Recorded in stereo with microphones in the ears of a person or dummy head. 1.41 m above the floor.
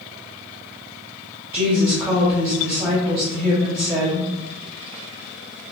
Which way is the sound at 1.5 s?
15° right (ahead or behind).